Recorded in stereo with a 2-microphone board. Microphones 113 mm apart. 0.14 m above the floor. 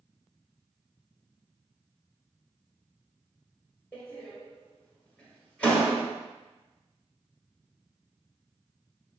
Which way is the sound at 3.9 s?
10° left (ahead or behind).